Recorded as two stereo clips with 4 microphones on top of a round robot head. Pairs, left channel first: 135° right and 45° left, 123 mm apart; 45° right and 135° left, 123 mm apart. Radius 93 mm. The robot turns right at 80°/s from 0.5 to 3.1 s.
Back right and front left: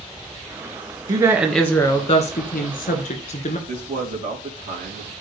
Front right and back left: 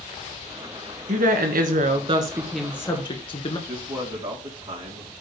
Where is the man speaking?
65° left, 3.5 m.